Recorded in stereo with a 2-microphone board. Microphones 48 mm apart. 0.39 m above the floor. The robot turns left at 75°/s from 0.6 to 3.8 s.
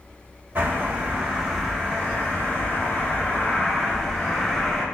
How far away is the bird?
About 1.6 m.